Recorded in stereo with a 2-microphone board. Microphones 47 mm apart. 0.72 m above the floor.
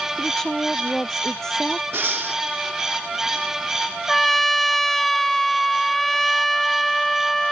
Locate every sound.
0.2 s a woman speaking: 10° left (ahead or behind)
1.9 s breathing: 55° right (ahead or behind)
4.1 s a trumpet: 5° left (ahead or behind)